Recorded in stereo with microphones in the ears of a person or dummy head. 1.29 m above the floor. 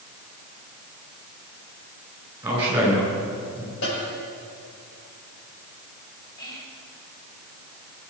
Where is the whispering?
20° left (ahead or behind), 4 m.